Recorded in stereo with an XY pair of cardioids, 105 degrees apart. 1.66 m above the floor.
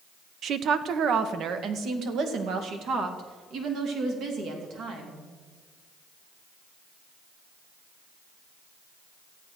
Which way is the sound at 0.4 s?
60° right.